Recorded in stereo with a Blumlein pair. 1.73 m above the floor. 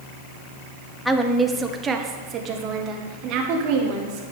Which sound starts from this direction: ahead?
A woman speaking, at 1.1 s.